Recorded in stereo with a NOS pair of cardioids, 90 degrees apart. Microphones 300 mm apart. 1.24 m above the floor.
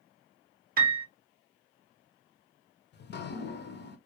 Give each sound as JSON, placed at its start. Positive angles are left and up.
{"t": 0.8, "sound": "a piano", "azimuth_deg": -30, "distance_m": 0.6}
{"t": 2.9, "sound": "dripping", "azimuth_deg": 35, "distance_m": 0.5}